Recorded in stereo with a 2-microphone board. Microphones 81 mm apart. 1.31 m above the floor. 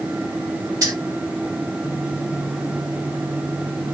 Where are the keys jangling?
50° right (ahead or behind), 3 m.